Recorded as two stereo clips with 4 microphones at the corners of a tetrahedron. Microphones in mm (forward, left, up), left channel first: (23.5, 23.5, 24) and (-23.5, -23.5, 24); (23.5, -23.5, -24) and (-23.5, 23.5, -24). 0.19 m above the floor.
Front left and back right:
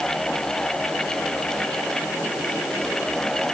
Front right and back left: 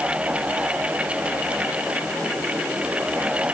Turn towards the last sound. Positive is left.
No sound to turn to.